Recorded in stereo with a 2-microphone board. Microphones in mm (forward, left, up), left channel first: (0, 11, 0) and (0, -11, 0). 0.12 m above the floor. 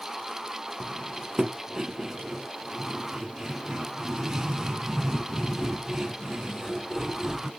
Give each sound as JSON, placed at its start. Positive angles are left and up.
{"t": 0.8, "sound": "cutlery clinking", "side_deg": -30, "distance_m": 1.7}